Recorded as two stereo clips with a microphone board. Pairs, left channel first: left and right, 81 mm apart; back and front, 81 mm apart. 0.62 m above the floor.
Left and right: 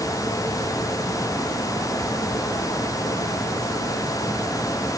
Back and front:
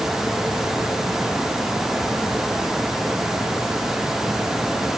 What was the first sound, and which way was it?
Only background noise.